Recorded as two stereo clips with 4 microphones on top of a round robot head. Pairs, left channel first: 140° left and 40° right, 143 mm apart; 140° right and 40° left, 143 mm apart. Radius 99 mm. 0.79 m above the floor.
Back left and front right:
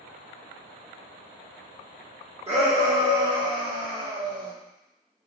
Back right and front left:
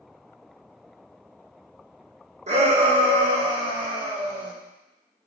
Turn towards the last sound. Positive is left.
turn(degrees=-20)